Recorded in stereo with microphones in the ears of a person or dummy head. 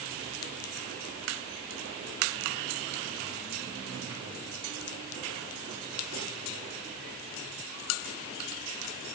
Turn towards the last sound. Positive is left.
No sound to turn to.